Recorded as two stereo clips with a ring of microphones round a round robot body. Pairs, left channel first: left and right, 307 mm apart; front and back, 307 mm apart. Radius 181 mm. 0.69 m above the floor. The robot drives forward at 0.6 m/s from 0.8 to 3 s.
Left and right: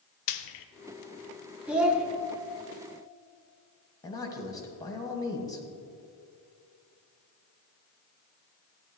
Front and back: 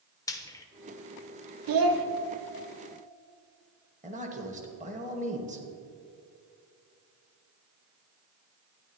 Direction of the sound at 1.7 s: 175° right.